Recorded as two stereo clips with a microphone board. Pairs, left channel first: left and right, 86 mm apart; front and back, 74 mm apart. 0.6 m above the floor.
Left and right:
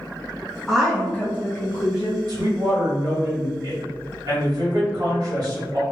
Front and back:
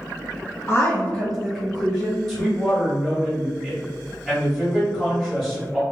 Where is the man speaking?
85° right, 1.4 m.